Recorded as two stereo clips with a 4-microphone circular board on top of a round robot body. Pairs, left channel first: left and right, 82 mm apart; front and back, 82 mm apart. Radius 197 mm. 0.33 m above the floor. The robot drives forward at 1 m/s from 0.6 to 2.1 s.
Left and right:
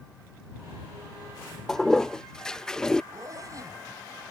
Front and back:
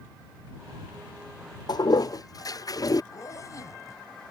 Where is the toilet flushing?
5° left; by 3.0 s 10° left.